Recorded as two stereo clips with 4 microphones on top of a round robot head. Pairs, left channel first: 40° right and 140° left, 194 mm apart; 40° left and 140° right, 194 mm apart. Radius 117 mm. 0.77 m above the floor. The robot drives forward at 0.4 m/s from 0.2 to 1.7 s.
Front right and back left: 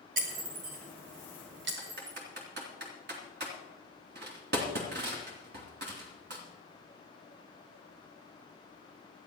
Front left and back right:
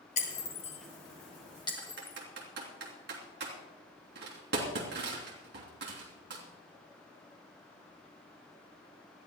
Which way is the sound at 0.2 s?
90° left.